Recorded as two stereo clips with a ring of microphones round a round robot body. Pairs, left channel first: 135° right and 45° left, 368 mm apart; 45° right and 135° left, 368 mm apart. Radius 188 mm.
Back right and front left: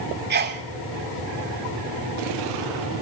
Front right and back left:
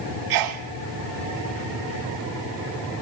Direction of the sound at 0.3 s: 110° left.